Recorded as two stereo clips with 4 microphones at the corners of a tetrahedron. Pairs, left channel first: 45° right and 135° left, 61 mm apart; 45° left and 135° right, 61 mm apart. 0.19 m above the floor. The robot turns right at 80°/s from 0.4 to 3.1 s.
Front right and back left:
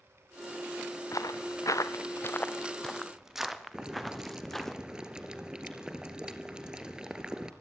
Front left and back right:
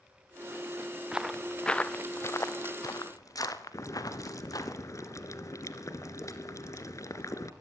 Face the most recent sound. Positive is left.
turn(degrees=60)